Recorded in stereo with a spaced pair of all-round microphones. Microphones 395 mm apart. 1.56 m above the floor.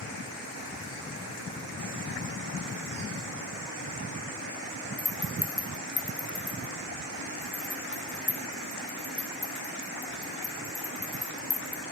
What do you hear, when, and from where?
5.0 s a rattle: 30° left (ahead or behind), 0.6 m